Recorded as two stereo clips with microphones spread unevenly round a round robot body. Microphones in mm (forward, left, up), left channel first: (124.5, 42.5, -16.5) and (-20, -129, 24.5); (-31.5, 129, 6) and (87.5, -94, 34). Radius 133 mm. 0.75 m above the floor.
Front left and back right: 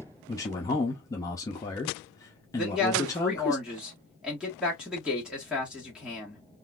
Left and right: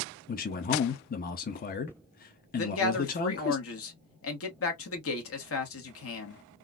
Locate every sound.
0.3 s a man speaking: 105° left, 0.6 m
2.6 s a man speaking: 140° left, 1.2 m